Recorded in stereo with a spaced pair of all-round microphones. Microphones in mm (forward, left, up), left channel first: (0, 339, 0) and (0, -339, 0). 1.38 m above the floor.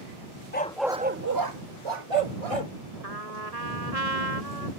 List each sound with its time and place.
0.5 s a dog barking: 15° left (ahead or behind); by 2.7 s 60° right (ahead or behind)
3.0 s a trumpet: 75° right (ahead or behind)